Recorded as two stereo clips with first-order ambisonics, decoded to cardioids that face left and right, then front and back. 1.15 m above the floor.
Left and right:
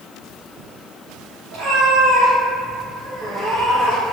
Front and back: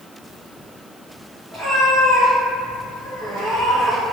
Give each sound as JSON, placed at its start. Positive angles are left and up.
{"t": 1.5, "sound": "a cat meowing", "azimuth_deg": -100, "distance_m": 1.8}